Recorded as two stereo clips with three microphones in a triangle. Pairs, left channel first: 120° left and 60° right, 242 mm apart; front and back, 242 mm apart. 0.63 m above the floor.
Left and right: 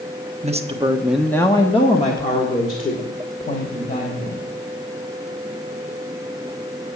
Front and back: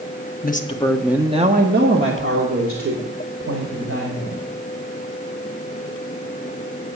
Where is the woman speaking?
15° right, 0.9 m; by 4.4 s 175° left, 3.5 m.